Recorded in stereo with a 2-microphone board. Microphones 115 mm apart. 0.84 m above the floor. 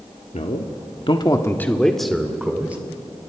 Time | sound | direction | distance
0.3 | a man speaking | 80° left | 1.6 m